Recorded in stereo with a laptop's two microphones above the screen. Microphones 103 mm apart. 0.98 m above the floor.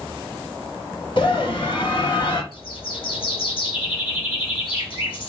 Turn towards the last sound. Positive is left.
turn(degrees=55)  # may be behind; listen again after turning